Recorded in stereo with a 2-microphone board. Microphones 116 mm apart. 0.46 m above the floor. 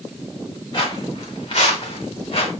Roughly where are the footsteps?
Left.